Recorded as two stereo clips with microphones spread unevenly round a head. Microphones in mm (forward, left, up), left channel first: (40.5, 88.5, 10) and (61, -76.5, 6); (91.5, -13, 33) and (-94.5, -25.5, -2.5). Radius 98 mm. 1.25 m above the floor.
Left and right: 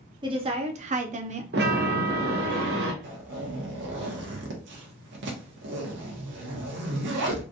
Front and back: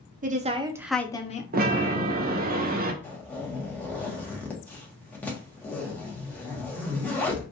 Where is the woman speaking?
145° right, 1.0 m; by 1.4 s 45° right, 0.8 m.